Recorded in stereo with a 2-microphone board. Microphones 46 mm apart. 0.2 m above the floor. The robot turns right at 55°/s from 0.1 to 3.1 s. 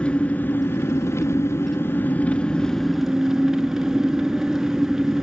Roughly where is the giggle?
No giggle in this recording.